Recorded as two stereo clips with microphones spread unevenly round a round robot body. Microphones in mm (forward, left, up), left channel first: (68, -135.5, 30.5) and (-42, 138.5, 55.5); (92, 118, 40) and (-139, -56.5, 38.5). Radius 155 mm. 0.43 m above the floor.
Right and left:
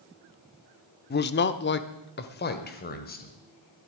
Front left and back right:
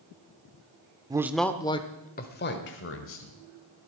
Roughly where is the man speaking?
Right.